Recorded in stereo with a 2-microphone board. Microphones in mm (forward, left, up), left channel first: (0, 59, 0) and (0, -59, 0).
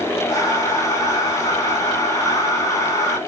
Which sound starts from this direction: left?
Breathing, at 0.3 s.